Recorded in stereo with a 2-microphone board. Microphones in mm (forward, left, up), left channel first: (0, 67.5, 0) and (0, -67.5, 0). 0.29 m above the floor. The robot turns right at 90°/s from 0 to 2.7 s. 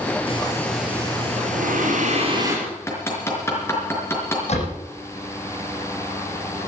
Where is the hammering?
25° left (ahead or behind), 4.5 m; by 4.4 s 20° left (ahead or behind), 4.5 m.